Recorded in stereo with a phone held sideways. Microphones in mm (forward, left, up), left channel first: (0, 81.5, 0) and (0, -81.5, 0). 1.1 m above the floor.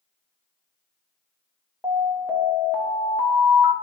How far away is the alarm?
About 1.6 m.